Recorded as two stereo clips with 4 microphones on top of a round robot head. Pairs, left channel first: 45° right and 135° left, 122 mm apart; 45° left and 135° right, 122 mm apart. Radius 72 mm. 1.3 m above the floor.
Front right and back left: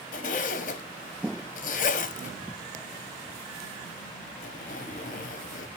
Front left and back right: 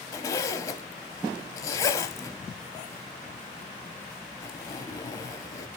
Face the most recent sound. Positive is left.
turn(degrees=-20)